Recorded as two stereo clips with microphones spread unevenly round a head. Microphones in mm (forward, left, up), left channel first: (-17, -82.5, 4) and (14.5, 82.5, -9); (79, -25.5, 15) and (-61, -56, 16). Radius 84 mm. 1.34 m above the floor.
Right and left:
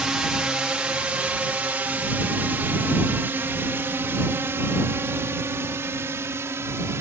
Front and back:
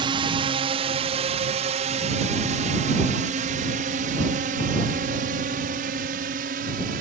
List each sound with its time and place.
0.0 s a drone: 160° left; by 7.0 s 155° left